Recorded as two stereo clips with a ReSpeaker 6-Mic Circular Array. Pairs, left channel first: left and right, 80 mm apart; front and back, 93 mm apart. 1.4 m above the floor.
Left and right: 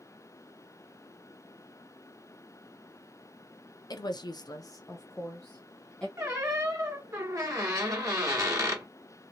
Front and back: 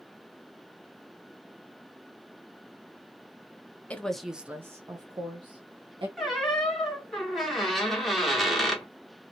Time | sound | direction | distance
3.9 | a woman speaking | 70° left | 0.6 m
6.2 | a squeak | 90° right | 1.1 m